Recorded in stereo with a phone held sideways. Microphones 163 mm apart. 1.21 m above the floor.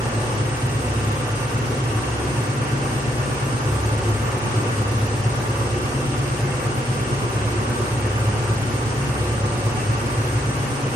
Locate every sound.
0.0 s an engine running: 70° right (ahead or behind), 2.5 m